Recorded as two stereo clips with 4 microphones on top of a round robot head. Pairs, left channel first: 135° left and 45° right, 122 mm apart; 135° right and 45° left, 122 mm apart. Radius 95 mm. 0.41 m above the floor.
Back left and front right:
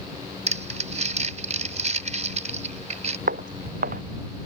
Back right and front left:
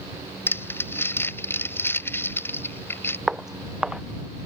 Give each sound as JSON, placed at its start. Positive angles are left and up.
{"t": 0.5, "sound": "crumpling", "azimuth_deg": -65}
{"t": 3.3, "sound": "footsteps", "azimuth_deg": -45}